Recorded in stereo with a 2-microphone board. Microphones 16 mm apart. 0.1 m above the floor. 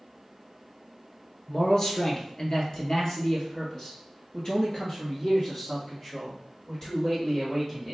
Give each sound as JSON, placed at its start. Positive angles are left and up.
{"t": 1.5, "sound": "a man speaking", "side_deg": 35, "distance_m": 1.3}